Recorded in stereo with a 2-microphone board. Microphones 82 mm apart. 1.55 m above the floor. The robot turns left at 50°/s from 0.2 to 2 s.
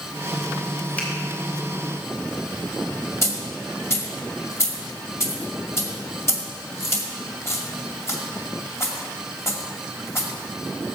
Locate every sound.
1.0 s a finger snap: 15° left (ahead or behind), 3 m; by 1.1 s 10° left (ahead or behind), 3 m
3.2 s a dropped coin: 30° left (ahead or behind), 2 m